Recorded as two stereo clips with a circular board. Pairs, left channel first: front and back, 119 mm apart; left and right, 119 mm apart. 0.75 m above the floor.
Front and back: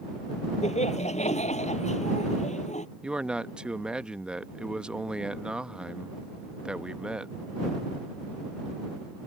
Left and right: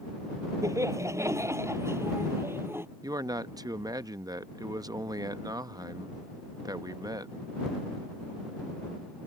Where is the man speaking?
105° right.